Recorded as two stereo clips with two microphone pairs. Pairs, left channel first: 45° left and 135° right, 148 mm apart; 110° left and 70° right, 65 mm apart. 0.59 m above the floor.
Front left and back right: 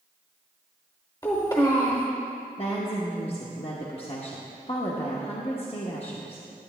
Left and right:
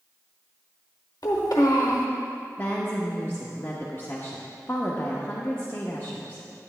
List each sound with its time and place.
1.2 s a child speaking: 110° left, 0.9 m
2.6 s a woman speaking: 70° left, 0.9 m